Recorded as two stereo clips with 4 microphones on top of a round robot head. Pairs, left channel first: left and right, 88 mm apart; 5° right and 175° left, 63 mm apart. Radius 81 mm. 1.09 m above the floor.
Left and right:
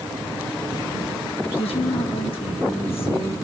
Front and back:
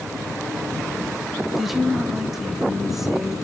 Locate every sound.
1.6 s a woman speaking: 90° left, 2 m